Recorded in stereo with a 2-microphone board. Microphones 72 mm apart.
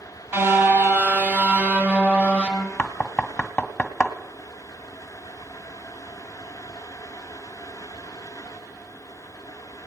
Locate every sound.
0.3 s a car horn: 35° right (ahead or behind), 2.5 m; by 2.7 s 15° right (ahead or behind), 3.5 m
2.8 s knocking: 15° left (ahead or behind), 1.3 m